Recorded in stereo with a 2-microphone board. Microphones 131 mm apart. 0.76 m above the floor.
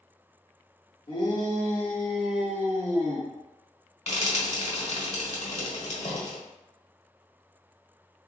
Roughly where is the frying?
Left.